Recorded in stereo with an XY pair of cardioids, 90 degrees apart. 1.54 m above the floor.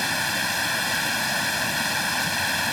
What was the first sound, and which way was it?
Running water, 10° left.